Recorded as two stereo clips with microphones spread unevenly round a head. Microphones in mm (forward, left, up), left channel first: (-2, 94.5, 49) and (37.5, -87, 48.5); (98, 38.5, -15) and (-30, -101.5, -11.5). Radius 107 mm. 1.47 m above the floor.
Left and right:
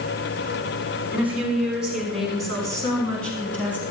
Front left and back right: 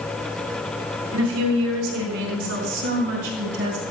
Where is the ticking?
I don't hear ticking.